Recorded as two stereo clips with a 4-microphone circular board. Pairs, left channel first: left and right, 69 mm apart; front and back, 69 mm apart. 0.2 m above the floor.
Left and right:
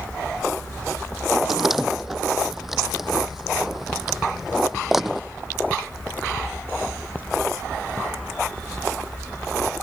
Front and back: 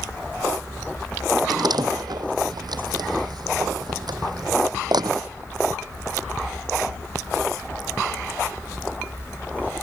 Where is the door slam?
175° right.